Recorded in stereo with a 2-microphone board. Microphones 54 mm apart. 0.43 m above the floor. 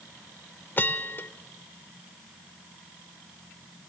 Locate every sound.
0.8 s a bell: 40° left (ahead or behind), 0.6 m